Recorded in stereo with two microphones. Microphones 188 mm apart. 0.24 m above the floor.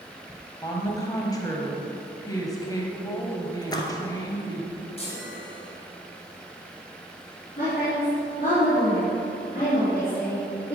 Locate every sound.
0.6 s a woman speaking: 20° left (ahead or behind), 1.3 m
3.6 s a splash: 20° left (ahead or behind), 1.1 m
5.0 s a chime: 35° left (ahead or behind), 2.5 m
7.6 s a woman speaking: 55° left (ahead or behind), 3 m